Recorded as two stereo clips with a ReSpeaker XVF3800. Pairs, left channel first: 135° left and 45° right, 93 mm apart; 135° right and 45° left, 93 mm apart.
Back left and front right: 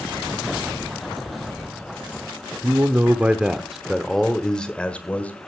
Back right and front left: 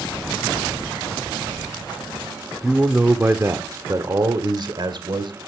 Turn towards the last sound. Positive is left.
turn(degrees=65)